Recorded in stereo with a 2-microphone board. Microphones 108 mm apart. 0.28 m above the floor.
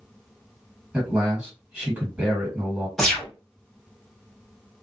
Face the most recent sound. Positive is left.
turn(degrees=5)  # may be behind; listen again after turning